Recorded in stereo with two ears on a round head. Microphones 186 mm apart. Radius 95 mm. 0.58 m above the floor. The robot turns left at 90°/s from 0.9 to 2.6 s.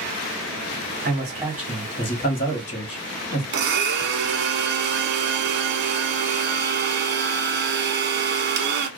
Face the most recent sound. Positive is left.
turn(degrees=-55)  # may be behind; listen again after turning